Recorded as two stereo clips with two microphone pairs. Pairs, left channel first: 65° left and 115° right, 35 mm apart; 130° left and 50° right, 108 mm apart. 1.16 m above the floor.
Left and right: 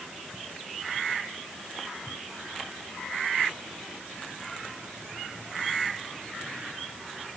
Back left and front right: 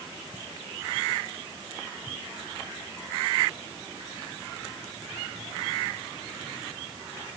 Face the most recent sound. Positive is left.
No sound to turn to.